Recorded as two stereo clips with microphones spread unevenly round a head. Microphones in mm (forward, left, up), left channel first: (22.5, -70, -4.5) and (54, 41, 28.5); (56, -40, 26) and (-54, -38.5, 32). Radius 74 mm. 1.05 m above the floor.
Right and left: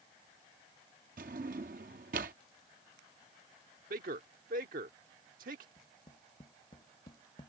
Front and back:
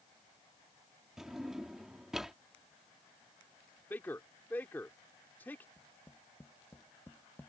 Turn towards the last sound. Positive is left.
turn(degrees=-70)